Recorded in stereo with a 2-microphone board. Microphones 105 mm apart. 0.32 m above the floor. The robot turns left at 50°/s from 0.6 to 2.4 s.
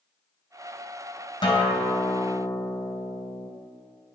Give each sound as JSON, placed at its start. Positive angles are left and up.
{"t": 1.4, "sound": "a guitar", "azimuth_deg": 90, "distance_m": 1.5}